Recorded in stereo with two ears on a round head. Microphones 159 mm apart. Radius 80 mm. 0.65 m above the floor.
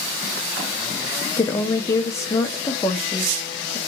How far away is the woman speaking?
About 0.6 m.